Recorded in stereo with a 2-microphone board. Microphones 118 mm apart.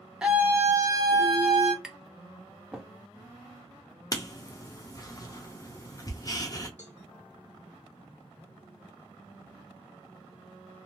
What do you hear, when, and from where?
0.2 s a scream: 5° right (ahead or behind), 0.8 m; by 1.7 s 50° right (ahead or behind), 1.3 m
1.8 s tapping: 5° right (ahead or behind), 0.6 m
4.1 s writing: 30° left (ahead or behind), 0.6 m
6.8 s a cowbell: 75° left (ahead or behind), 0.7 m